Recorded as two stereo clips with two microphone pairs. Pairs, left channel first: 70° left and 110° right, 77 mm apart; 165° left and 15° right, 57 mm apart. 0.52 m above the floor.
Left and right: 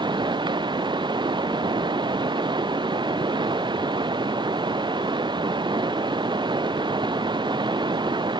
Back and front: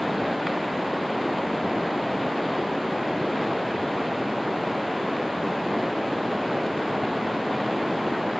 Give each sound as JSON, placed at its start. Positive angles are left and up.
{"t": 0.0, "sound": "running water", "azimuth_deg": -105}